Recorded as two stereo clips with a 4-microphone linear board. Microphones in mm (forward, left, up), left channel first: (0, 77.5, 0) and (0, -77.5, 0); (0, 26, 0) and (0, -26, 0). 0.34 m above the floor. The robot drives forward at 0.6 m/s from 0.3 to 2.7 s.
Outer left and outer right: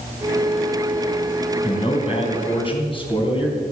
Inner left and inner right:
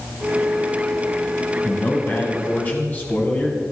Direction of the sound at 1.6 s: 40° left (ahead or behind).